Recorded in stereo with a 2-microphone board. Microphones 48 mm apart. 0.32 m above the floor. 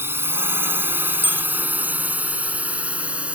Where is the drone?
55° right (ahead or behind); by 3.4 s 25° right (ahead or behind).